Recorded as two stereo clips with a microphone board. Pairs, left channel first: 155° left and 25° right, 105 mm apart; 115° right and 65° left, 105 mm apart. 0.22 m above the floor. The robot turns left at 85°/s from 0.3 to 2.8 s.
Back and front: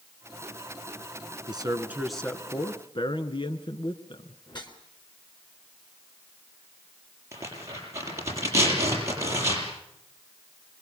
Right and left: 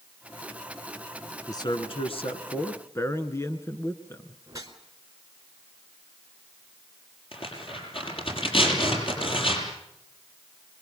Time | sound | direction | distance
1.5 | a man speaking | 60° right | 2 m
4.5 | a whoosh | 120° left | 3 m
7.3 | tearing paper | 85° right | 7 m